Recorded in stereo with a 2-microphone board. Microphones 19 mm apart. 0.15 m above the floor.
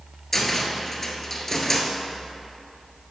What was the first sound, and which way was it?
A cupboard door, 15° left (ahead or behind).